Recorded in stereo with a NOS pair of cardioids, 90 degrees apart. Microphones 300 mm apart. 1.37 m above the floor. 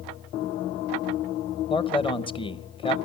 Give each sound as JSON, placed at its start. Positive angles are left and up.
{"t": 1.7, "sound": "a man speaking", "azimuth_deg": 15, "distance_m": 0.9}